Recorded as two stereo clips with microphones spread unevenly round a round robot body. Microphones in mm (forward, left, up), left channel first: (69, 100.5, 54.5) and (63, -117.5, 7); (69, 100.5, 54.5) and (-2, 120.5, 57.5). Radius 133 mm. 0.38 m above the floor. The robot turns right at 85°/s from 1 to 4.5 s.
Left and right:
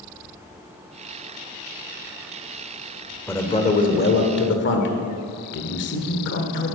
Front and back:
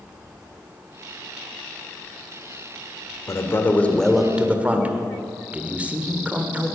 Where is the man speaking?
5° right, 1.6 m; by 6.8 s 100° left, 1.6 m.